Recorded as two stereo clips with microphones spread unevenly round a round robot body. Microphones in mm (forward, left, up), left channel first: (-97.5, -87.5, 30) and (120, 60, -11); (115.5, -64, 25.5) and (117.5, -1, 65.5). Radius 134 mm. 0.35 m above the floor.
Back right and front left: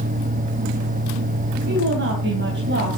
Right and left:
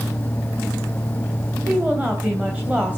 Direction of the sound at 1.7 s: Straight ahead.